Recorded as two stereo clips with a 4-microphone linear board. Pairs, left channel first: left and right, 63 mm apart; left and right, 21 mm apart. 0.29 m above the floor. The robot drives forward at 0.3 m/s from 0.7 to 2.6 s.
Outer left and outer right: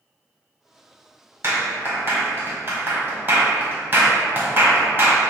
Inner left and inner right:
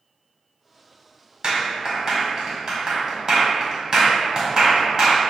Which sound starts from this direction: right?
A clap, at 1.4 s.